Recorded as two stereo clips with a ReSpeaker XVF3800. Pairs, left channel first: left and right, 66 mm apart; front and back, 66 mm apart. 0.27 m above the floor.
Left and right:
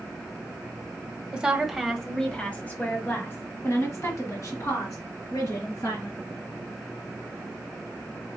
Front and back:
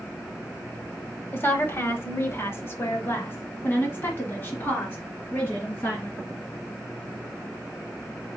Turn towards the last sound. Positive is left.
turn(degrees=60)